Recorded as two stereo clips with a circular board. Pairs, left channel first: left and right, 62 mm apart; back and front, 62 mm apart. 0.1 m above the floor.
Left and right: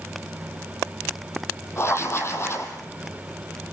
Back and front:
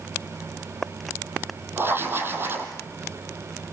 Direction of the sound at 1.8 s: 50° left.